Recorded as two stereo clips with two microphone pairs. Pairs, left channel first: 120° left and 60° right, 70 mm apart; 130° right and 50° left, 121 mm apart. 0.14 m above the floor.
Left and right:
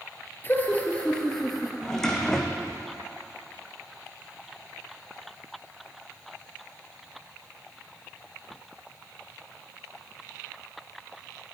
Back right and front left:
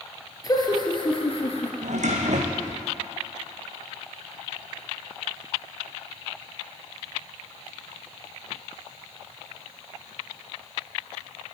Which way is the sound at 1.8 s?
40° left.